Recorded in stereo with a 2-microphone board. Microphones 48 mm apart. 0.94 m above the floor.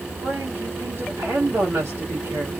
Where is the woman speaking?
65° right (ahead or behind), 1.6 m.